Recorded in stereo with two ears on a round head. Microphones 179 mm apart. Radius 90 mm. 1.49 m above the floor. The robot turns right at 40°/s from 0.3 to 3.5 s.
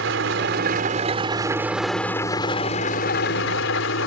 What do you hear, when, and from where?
0.0 s an engine running: 65° right; by 4.1 s 65° left